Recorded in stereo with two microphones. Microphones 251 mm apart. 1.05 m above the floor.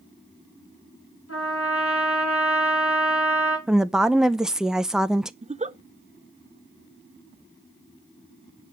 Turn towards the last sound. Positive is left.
turn(degrees=-25)  # may be behind; listen again after turning